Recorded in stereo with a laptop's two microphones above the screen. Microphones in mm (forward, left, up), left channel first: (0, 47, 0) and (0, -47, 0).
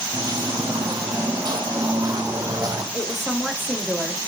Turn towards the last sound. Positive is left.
turn(degrees=-5)  # may be behind; listen again after turning